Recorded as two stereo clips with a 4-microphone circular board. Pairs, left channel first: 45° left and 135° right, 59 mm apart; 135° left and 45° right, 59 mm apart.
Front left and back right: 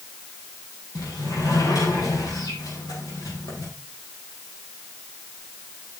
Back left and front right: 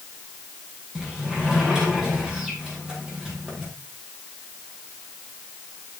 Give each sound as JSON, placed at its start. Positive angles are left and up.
{"t": 0.9, "sound": "a sliding door", "azimuth_deg": 35, "distance_m": 5.5}